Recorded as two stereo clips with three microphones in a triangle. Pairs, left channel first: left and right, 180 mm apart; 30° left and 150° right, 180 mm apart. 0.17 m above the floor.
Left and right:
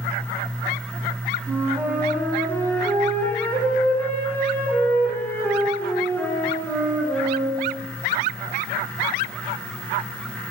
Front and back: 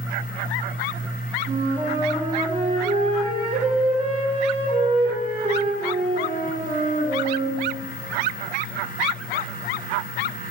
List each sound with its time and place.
1.5 s a flute: 165° left, 1.1 m